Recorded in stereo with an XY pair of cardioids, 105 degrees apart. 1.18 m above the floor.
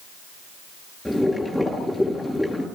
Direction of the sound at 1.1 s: 5° left.